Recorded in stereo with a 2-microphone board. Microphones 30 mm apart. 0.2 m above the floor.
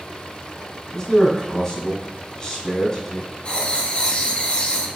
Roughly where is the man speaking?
Centre.